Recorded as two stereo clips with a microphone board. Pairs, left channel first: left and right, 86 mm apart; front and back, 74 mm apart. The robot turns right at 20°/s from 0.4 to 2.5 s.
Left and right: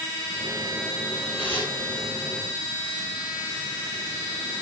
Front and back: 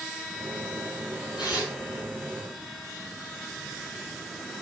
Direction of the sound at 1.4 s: 20° left.